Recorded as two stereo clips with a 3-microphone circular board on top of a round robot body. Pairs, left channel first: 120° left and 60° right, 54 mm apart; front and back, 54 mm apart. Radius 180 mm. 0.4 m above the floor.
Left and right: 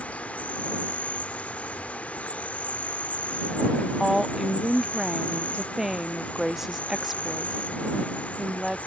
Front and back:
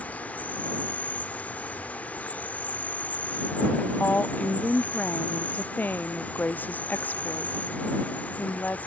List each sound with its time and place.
0.0 s an insect: 60° left
4.0 s a woman speaking: 20° left